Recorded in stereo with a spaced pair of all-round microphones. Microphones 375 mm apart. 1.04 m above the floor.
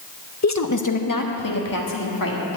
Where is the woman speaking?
45° left (ahead or behind), 0.7 m; by 2.6 s 65° left (ahead or behind), 2.5 m.